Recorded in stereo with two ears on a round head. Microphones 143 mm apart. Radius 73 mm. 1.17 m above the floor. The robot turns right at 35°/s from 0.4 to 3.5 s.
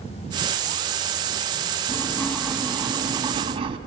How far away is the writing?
About 4 m.